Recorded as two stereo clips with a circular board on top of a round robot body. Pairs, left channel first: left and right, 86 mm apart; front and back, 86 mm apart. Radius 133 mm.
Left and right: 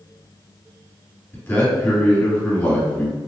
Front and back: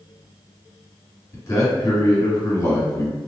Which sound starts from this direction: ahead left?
A man speaking, at 1.3 s.